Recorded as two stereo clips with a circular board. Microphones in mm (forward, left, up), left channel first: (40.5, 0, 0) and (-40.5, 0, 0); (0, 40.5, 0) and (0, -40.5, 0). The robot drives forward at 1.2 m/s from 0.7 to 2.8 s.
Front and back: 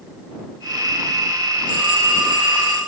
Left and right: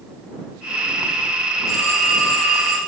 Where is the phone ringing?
Straight behind, 2 m.